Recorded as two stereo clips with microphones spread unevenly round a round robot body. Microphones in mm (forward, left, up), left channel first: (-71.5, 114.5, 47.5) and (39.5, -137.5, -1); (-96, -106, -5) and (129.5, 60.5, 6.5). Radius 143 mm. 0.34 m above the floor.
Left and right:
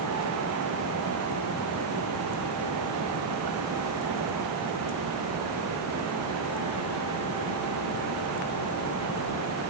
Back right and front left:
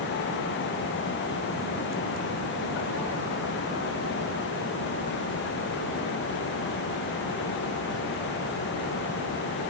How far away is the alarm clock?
No alarm clock in this recording.